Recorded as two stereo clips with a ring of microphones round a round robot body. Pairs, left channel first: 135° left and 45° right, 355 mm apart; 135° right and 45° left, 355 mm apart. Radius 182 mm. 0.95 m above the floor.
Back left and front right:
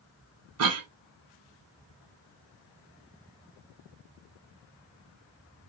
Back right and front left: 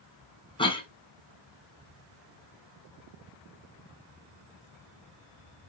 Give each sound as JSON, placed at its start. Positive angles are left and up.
{"t": 0.6, "sound": "a cough", "azimuth_deg": -65, "distance_m": 1.0}